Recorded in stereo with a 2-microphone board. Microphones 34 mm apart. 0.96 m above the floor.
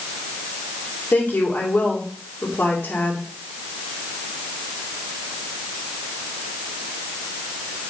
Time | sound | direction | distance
1.1 | a woman speaking | 80° left | 2 m